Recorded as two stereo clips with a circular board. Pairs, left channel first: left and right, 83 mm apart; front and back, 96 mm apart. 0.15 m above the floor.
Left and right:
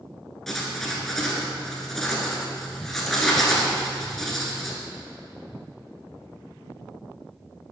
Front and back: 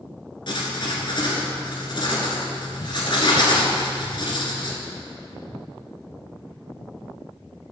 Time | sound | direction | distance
0.5 | writing | 5° left | 1.3 m